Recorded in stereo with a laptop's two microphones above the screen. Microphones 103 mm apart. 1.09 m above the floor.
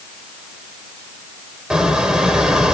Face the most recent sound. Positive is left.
turn(degrees=-10)  # may be behind; listen again after turning